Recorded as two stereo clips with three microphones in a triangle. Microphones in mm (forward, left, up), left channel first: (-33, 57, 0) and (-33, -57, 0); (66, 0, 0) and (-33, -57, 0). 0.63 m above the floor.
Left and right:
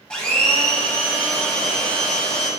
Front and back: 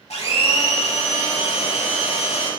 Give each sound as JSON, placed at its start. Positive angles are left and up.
{"t": 0.1, "sound": "a blender", "azimuth_deg": 10, "distance_m": 0.9}